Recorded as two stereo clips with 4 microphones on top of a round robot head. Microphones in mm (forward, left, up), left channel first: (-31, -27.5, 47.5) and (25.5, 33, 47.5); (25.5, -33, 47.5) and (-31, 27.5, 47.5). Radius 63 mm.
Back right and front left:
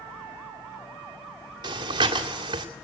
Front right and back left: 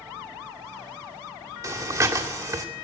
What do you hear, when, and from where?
1.6 s breathing: 80° left, 2 m